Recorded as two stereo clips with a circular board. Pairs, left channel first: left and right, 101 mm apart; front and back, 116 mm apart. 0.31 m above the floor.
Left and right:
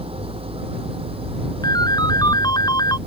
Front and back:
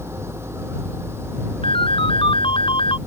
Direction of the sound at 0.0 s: 110° right.